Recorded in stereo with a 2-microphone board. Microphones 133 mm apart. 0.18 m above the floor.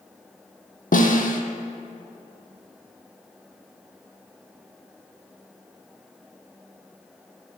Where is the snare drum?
75° left (ahead or behind), 1.1 m.